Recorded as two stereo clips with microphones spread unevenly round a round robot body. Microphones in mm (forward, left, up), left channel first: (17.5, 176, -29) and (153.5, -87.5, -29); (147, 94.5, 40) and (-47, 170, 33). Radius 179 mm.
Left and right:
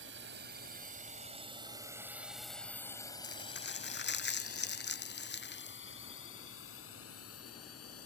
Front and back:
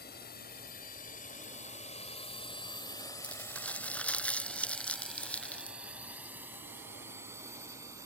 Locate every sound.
0.0 s a drone: 35° right; by 8.1 s 85° left
3.2 s crumpling: 65° left